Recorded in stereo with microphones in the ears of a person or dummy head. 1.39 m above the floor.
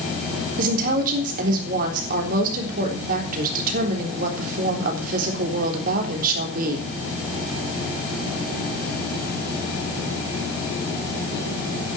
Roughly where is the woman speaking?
Right.